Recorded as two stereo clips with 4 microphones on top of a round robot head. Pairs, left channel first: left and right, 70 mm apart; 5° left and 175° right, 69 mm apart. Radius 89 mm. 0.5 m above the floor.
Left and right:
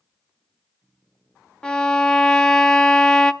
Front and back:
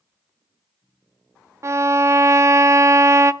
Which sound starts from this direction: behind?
A violin, at 1.6 s.